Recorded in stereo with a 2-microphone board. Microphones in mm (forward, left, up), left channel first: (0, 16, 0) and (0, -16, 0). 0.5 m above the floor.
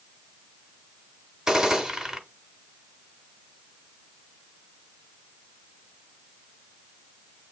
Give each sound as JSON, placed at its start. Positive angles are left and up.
{"t": 1.5, "sound": "a gunshot", "side_deg": -20, "distance_m": 1.0}